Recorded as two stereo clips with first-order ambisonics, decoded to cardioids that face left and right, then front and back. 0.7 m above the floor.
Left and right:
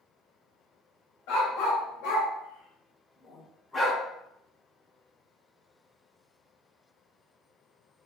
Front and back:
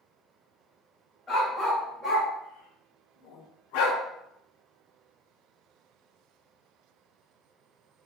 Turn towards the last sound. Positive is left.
turn(degrees=0)